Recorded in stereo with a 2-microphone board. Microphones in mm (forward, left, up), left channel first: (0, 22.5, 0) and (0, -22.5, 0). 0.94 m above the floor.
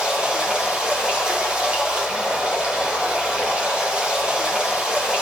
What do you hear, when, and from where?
0.0 s running water: 25° right (ahead or behind), 3 m